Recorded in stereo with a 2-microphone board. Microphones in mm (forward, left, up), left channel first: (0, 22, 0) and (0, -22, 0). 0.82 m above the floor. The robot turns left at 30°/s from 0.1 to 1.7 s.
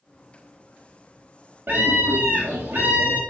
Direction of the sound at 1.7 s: 55° right (ahead or behind).